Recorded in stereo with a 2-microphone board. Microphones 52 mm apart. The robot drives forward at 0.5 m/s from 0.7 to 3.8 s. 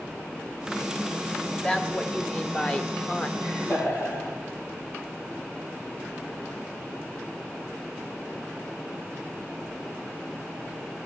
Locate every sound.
1.5 s a woman speaking: 20° left (ahead or behind), 1.8 m; by 3.3 s 25° left (ahead or behind), 1.3 m
3.4 s laughter: 65° left (ahead or behind), 9 m